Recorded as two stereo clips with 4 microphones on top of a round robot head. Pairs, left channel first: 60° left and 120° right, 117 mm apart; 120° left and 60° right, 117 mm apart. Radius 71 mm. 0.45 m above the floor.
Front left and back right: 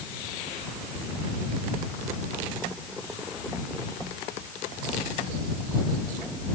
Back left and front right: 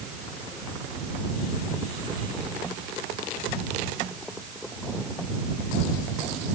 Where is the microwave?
No microwave in this recording.